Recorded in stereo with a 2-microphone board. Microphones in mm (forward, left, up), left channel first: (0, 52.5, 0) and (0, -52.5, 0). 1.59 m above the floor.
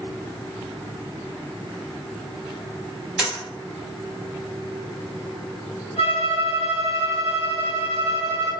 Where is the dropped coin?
5° right (ahead or behind), 1.9 m.